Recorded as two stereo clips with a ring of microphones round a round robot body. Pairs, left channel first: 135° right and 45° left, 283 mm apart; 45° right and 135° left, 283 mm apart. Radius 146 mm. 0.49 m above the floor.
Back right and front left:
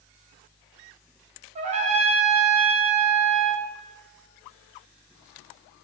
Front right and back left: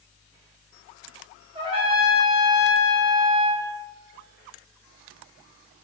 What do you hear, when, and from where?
1.6 s a trumpet: 85° left, 0.5 m